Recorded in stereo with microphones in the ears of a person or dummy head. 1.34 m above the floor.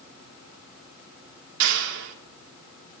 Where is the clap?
65° right (ahead or behind), 3.5 m.